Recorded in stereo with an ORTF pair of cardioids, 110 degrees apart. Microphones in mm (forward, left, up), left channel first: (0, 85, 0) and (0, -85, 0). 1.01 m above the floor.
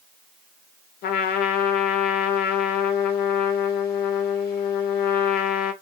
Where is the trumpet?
65° left, 0.6 m.